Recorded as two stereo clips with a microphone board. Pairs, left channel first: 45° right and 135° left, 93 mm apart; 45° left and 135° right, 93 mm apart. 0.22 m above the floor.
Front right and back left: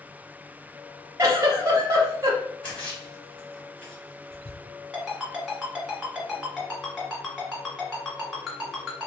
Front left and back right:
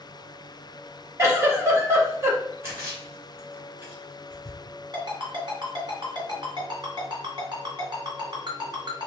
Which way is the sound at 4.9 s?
140° right.